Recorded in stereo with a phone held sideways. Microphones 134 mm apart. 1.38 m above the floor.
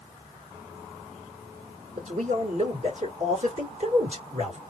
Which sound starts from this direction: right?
A man speaking, at 2.0 s.